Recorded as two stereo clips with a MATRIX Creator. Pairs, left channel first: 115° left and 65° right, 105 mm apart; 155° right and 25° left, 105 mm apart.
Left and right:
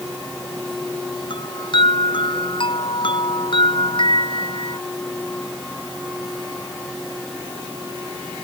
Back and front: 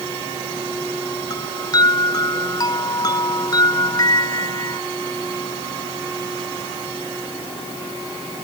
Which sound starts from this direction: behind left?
A chime, at 1.3 s.